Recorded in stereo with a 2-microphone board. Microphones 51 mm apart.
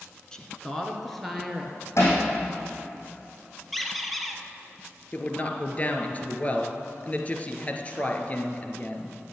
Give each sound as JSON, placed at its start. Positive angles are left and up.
{"t": 0.3, "sound": "a woman speaking", "side_deg": 15, "distance_m": 1.9}
{"t": 2.0, "sound": "hammering", "side_deg": 60, "distance_m": 6.0}
{"t": 3.7, "sound": "a squeak", "side_deg": 0, "distance_m": 1.5}
{"t": 5.1, "sound": "a man speaking", "side_deg": 30, "distance_m": 2.0}